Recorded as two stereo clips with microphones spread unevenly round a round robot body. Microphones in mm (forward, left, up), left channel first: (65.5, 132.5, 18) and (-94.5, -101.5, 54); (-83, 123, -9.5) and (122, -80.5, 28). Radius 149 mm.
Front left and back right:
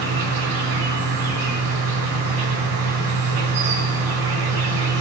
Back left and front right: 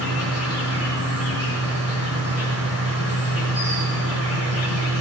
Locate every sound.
0.0 s an insect: 130° right, 5.5 m